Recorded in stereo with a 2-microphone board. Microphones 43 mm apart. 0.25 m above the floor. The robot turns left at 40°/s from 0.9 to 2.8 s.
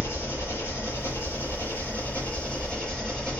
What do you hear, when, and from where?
0.0 s an engine running: 95° left, 3.5 m; by 3.4 s 20° left, 3.5 m